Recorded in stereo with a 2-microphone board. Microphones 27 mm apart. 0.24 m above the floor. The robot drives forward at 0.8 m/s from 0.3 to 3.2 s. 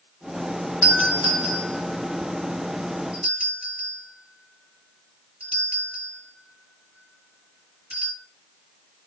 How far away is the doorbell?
About 3.5 m.